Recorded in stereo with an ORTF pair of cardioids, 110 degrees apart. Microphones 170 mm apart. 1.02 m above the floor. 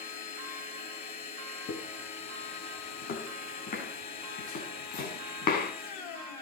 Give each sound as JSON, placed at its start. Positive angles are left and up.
{"t": 0.0, "sound": "a machine running", "azimuth_deg": 60, "distance_m": 3.0}
{"t": 1.7, "sound": "footsteps", "azimuth_deg": 65, "distance_m": 6.0}